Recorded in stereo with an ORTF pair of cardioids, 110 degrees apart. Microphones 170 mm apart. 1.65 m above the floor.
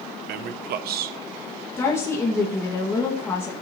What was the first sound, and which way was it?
A man speaking, 65° right.